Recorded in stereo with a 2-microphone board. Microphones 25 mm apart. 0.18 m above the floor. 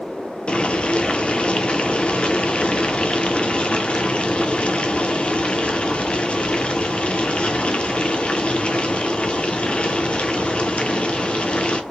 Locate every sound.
0.5 s boiling: 50° left (ahead or behind), 0.7 m